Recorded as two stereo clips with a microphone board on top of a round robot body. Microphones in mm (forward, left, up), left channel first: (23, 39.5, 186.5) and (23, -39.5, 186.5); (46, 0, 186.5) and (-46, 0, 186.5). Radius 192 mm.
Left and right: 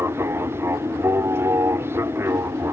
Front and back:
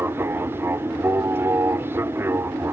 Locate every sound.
0.0 s an aircraft: 130° right